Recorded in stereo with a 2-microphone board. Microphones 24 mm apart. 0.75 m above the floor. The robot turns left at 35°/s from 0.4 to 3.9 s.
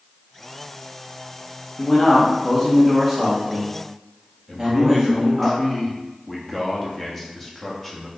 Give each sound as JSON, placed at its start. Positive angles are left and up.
{"t": 1.8, "sound": "a man speaking", "azimuth_deg": 45, "distance_m": 1.3}
{"t": 4.5, "sound": "a man speaking", "side_deg": 10, "distance_m": 0.8}